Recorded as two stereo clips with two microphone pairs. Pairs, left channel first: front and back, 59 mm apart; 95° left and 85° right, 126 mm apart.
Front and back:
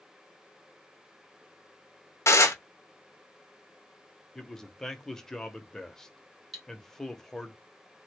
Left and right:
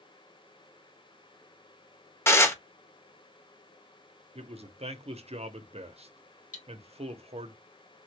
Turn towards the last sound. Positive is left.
turn(degrees=90)